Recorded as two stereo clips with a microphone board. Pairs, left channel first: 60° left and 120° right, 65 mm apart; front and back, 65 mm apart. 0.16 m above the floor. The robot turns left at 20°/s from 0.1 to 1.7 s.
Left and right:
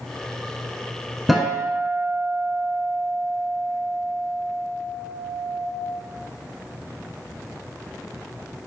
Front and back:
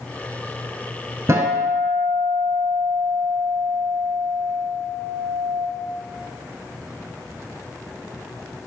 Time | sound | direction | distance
1.3 | a guitar | 150° left | 0.7 m